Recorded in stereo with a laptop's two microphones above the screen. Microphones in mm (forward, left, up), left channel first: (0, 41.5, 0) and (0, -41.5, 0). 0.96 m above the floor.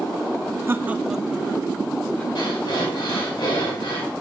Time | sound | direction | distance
0.7 | laughter | 30° right (ahead or behind) | 0.6 m
2.4 | breathing | 75° left (ahead or behind) | 3.5 m